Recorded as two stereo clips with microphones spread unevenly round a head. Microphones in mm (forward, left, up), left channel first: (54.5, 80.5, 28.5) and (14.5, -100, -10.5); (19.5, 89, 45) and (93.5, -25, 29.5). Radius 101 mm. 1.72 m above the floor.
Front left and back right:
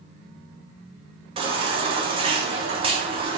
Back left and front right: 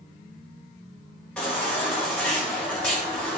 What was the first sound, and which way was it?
A baby crying, 165° right.